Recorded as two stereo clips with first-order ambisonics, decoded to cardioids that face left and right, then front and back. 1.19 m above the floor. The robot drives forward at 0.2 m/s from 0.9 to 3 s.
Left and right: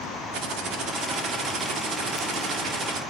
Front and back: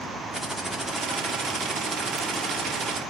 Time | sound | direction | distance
0.3 | typing on a keyboard | 95° right | 0.9 m